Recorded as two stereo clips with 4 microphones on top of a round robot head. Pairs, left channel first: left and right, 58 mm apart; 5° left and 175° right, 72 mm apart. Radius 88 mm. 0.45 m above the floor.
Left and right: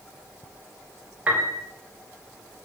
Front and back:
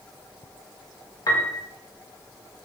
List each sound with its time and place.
1.3 s a piano: 25° right, 1.4 m